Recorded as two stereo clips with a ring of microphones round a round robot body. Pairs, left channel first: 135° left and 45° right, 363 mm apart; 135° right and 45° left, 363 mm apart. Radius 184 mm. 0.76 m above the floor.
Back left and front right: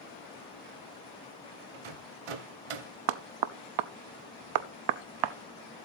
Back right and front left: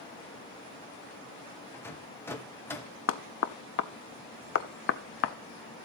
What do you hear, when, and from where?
1.7 s a rattle: 50° right, 1.1 m
3.1 s knocking: 75° right, 0.5 m